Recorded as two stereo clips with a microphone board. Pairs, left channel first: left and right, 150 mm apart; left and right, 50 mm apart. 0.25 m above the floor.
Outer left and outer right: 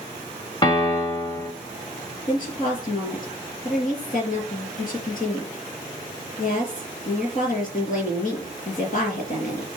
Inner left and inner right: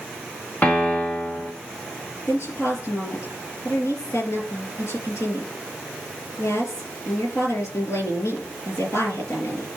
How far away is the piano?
About 1.8 m.